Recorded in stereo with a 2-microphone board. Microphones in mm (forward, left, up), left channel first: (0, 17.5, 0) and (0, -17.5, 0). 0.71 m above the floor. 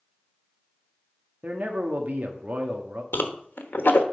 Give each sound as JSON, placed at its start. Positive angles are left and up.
{"t": 1.4, "sound": "a man speaking", "side_deg": -55, "distance_m": 1.1}
{"t": 3.1, "sound": "a whoosh", "side_deg": 85, "distance_m": 1.0}